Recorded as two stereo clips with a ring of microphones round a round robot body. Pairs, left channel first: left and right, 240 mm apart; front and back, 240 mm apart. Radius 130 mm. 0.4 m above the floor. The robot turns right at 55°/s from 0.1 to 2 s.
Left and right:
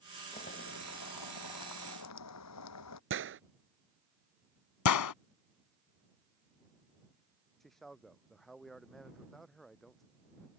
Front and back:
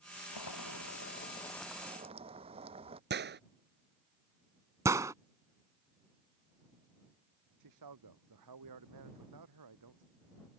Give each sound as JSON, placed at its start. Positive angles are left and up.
{"t": 0.3, "sound": "boiling", "azimuth_deg": 15}
{"t": 3.1, "sound": "a gunshot", "azimuth_deg": -130}
{"t": 4.8, "sound": "a gunshot", "azimuth_deg": 100}
{"t": 7.6, "sound": "a man speaking", "azimuth_deg": 180}